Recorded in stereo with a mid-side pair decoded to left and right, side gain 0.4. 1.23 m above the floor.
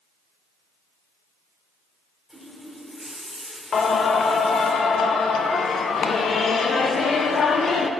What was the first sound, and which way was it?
A running tap, 15° right.